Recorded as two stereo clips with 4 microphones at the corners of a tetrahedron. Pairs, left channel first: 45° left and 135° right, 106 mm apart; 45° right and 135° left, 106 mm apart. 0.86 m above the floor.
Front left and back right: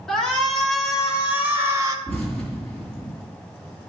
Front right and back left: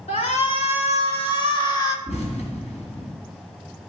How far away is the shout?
About 2.0 m.